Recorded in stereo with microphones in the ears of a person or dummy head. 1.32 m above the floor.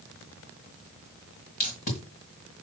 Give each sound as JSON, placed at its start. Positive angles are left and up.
{"t": 1.6, "sound": "tape being pulled", "side_deg": 35, "distance_m": 1.6}